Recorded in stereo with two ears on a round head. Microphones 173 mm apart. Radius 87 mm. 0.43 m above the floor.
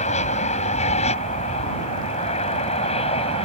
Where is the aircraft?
35° left (ahead or behind); by 3.5 s 30° left (ahead or behind).